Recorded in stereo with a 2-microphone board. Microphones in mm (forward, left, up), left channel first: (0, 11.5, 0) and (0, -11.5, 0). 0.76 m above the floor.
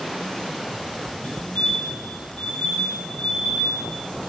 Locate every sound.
1.2 s a fire alarm: 75° left (ahead or behind), 9 m